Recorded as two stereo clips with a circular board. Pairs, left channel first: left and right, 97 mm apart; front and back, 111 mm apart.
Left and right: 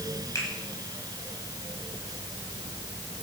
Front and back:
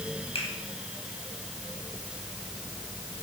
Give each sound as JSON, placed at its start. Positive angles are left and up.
{"t": 0.3, "sound": "a finger snap", "azimuth_deg": 35, "distance_m": 4.0}